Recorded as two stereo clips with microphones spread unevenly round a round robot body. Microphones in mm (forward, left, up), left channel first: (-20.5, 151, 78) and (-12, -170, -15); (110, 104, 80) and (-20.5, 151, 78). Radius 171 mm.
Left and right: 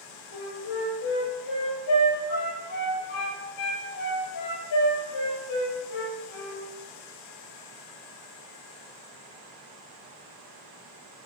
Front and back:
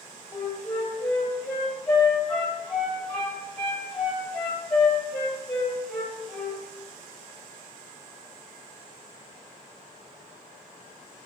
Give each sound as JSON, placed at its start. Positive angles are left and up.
{"t": 0.3, "sound": "a flute", "azimuth_deg": 60, "distance_m": 6.5}